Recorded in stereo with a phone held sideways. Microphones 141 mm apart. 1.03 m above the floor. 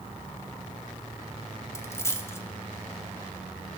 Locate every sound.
1.8 s a dropped coin: 20° left (ahead or behind), 0.6 m